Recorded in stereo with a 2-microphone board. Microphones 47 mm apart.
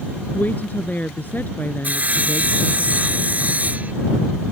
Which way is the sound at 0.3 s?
40° left (ahead or behind).